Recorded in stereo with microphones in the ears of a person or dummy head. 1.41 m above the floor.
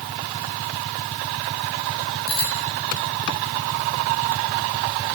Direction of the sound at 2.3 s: 85° left.